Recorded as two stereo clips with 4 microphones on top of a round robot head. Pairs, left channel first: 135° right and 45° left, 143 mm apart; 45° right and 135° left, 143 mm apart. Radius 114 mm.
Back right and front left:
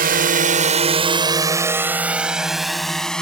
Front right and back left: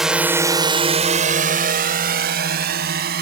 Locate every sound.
0.0 s a drone: 50° left; by 3.2 s 140° left